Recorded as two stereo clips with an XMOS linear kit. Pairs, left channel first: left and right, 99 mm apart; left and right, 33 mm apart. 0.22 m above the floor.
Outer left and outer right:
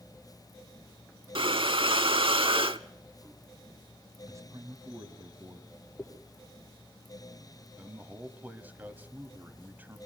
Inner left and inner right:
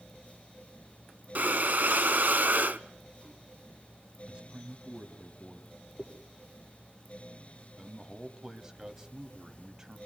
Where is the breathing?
65° right (ahead or behind), 0.5 m.